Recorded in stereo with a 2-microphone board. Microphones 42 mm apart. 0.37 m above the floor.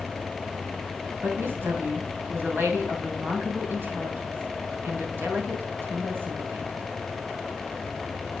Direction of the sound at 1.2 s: 65° right (ahead or behind).